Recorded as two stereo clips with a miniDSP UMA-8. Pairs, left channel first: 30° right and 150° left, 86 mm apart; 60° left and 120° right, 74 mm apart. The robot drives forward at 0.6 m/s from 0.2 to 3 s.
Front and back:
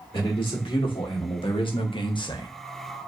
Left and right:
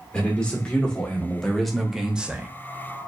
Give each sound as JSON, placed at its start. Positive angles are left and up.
{"t": 0.1, "sound": "a man speaking", "azimuth_deg": -15, "distance_m": 1.8}